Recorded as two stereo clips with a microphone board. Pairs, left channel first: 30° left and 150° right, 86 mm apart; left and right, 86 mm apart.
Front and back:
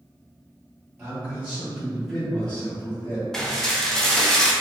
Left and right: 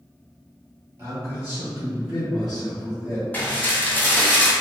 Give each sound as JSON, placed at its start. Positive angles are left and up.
{"t": 1.0, "sound": "a man speaking", "azimuth_deg": -105, "distance_m": 1.5}
{"t": 3.3, "sound": "dishes clattering", "azimuth_deg": 105, "distance_m": 0.5}